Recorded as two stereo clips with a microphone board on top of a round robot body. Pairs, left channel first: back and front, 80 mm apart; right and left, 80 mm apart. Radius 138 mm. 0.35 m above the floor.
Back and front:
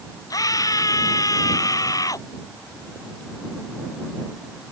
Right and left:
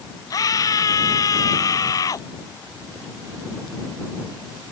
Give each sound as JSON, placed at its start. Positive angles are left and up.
{"t": 0.3, "sound": "a scream", "azimuth_deg": -135}